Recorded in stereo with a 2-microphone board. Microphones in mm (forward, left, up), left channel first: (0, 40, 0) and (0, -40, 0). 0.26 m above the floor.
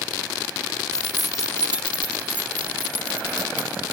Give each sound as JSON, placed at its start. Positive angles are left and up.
{"t": 0.9, "sound": "keys jangling", "side_deg": 10, "distance_m": 0.6}